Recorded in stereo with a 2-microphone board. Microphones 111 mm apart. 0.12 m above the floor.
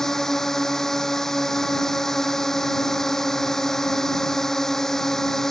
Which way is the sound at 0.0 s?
5° left (ahead or behind).